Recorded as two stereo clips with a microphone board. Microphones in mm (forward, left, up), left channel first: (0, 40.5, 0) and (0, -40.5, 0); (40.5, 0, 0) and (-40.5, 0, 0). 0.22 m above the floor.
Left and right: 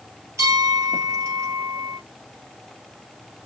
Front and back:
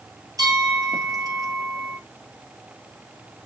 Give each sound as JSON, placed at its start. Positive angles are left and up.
{"t": 0.4, "sound": "a bell", "azimuth_deg": -140, "distance_m": 2.0}